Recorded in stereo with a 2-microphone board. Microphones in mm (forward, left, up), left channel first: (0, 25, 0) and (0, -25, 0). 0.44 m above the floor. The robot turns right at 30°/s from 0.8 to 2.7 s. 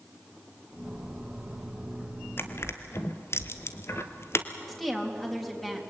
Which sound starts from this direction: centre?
A woman speaking, at 4.7 s.